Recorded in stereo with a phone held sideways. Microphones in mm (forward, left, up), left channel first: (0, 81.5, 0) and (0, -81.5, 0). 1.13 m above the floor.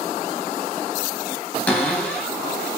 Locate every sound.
1.7 s a cupboard door: 10° left (ahead or behind), 0.6 m